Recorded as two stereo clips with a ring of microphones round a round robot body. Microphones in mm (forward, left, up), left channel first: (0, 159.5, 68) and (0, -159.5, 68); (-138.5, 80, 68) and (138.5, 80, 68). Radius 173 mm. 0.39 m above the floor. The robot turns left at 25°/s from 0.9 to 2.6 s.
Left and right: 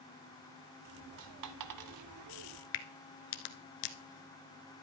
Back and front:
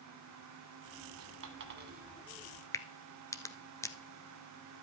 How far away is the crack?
About 1.1 m.